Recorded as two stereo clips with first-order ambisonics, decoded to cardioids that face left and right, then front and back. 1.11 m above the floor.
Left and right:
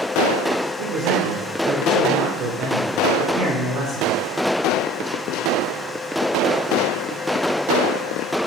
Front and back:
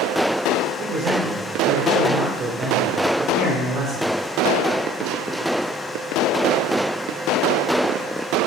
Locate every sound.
0.8 s a man speaking: 125° right, 3.5 m